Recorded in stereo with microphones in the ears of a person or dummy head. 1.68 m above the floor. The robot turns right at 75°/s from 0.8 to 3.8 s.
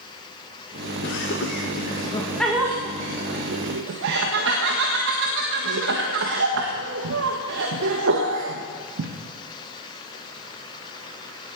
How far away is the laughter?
About 1.5 m.